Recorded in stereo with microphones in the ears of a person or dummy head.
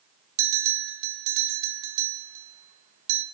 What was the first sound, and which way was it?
A bell, 70° right (ahead or behind).